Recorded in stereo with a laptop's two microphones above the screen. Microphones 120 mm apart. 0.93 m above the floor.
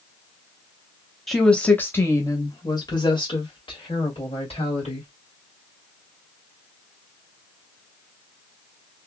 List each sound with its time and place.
1.3 s a woman speaking: centre (ahead or behind), 1.0 m; by 5.1 s 60° left (ahead or behind), 2.5 m